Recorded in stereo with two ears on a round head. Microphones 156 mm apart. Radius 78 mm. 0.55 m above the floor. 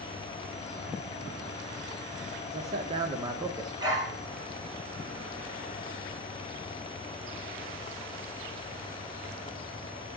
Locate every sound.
2.5 s a man speaking: 35° right (ahead or behind), 1.1 m; by 3.7 s 10° right (ahead or behind), 1.0 m
3.8 s a dog barking: 25° right (ahead or behind), 4.5 m